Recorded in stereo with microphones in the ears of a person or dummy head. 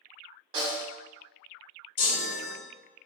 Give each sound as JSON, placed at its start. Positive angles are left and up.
{"t": 0.5, "sound": "a snare drum", "side_deg": -35, "distance_m": 1.1}
{"t": 2.0, "sound": "a chime", "side_deg": 75, "distance_m": 1.7}